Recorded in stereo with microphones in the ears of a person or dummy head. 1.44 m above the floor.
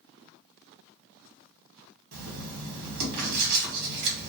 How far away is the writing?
About 1.0 m.